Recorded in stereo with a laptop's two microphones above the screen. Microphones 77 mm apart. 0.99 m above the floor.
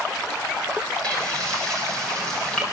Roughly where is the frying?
Centre.